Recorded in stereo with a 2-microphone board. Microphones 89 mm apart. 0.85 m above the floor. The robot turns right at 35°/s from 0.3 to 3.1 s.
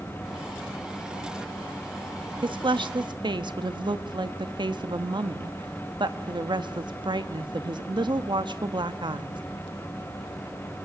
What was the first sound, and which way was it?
A woman speaking, 65° right (ahead or behind).